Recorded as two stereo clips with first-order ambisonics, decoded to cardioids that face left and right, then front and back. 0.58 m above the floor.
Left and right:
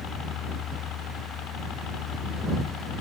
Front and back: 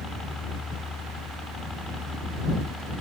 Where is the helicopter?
70° left; by 3.0 s 80° left.